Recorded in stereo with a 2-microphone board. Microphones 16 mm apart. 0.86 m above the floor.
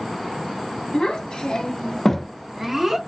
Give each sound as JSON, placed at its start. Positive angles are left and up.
{"t": 0.9, "sound": "a child speaking", "side_deg": 85, "distance_m": 1.0}